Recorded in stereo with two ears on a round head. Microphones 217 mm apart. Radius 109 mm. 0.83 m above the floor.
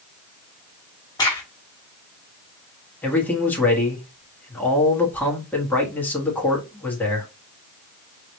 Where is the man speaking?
5° left (ahead or behind), 1.4 m.